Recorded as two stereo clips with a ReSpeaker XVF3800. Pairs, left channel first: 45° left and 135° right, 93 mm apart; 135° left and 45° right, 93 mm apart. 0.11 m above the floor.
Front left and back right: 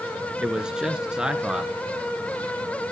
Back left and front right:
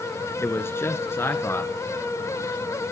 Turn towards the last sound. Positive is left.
turn(degrees=155)